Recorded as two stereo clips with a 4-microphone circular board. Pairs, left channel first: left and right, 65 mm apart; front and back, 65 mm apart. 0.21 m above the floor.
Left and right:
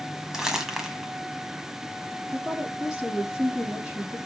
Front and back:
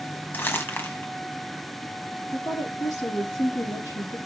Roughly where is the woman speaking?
Ahead.